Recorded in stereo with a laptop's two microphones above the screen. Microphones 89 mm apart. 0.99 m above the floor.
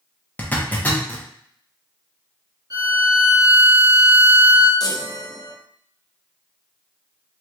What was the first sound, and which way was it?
A zipper, 20° left (ahead or behind).